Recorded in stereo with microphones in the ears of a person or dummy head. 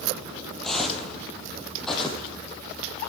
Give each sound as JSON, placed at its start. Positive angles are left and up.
{"t": 0.6, "sound": "footsteps", "side_deg": 10, "distance_m": 2.5}